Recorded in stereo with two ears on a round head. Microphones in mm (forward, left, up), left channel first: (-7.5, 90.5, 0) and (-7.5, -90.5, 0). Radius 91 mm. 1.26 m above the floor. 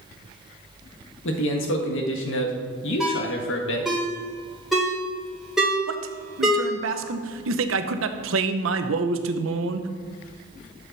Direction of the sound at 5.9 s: 70° right (ahead or behind).